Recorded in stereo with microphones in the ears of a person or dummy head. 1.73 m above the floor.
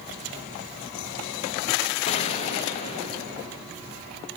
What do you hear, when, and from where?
2.1 s a gunshot: 30° left (ahead or behind), 2 m